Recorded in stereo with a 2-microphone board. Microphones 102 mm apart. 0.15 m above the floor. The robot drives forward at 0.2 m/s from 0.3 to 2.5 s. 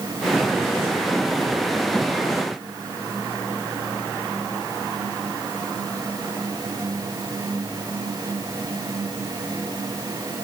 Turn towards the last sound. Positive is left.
No sound to turn to.